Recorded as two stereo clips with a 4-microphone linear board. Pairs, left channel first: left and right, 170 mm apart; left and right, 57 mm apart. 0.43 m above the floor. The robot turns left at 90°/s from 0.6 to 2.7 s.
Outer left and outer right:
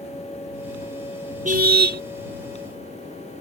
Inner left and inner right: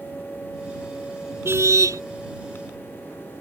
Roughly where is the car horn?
Ahead right.